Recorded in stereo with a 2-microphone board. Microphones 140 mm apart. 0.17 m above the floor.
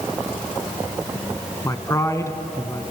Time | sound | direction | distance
1.6 | a man speaking | 20° left (ahead or behind) | 1.3 m